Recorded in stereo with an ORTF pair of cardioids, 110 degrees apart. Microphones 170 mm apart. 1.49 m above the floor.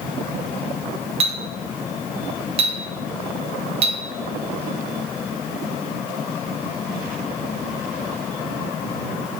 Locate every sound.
1.2 s a clink: 35° right, 1.2 m